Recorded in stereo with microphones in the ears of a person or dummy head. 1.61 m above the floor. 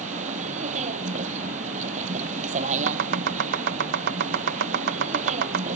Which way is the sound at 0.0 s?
40° right (ahead or behind).